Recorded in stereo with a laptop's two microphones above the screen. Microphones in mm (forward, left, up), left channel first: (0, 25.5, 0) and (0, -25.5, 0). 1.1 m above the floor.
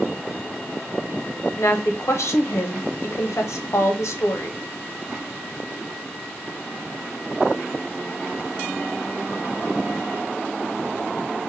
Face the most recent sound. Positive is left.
turn(degrees=70)  # may be behind; listen again after turning